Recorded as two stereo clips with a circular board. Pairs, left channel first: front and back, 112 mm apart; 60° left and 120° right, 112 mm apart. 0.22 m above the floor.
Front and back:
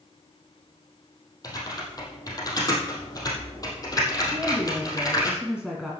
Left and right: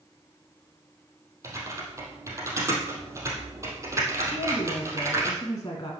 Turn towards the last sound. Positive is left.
turn(degrees=100)